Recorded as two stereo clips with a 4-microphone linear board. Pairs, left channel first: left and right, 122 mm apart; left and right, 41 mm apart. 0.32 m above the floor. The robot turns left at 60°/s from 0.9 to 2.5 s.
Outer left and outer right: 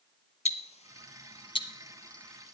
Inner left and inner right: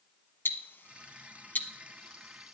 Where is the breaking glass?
I don't hear breaking glass.